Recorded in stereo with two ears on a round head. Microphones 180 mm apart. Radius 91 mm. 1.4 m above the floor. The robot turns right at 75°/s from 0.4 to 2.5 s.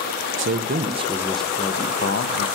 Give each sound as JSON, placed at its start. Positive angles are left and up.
{"t": 0.4, "sound": "a man speaking", "azimuth_deg": -75, "distance_m": 0.5}